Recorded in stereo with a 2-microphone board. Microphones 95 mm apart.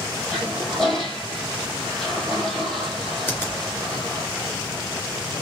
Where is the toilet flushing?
5° left (ahead or behind), 1.8 m.